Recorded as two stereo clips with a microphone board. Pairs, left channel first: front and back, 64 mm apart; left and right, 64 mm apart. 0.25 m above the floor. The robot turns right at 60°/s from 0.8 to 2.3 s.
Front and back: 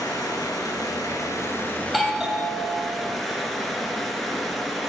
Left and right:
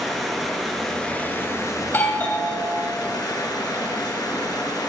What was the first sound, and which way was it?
Running water, straight ahead.